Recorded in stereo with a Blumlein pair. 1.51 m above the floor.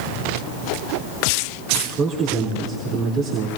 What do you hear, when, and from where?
1.7 s a man speaking: 35° right, 3.5 m